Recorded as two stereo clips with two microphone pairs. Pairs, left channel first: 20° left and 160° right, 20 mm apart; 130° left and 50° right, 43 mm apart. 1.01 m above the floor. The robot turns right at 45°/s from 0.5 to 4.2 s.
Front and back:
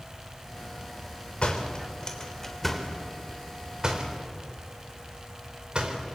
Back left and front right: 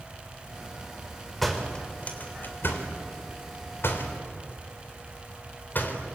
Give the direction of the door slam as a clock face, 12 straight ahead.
11 o'clock.